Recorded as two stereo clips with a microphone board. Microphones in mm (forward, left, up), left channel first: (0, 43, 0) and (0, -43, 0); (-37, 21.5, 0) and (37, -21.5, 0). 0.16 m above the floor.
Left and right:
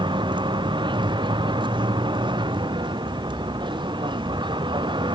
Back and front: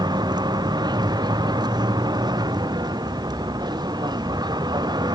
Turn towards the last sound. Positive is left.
turn(degrees=-65)